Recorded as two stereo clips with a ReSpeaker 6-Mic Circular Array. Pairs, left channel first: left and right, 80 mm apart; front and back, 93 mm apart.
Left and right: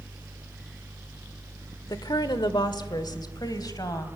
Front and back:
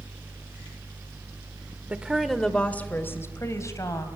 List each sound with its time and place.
1.9 s a woman speaking: 110° left, 1.3 m; by 4.1 s 50° left, 3 m